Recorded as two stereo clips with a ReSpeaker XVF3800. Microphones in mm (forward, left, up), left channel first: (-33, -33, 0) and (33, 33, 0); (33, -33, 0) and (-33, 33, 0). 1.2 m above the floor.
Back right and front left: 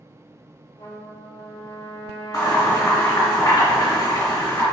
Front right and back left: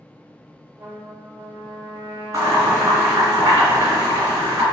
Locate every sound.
0.8 s a trumpet: 155° right, 1.3 m
2.3 s boiling: straight behind, 1.8 m